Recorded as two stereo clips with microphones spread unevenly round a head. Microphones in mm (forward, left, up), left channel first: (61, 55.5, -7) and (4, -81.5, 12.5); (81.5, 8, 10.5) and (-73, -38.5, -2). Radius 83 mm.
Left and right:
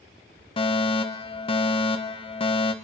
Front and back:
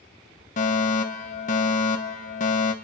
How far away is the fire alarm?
About 1.4 m.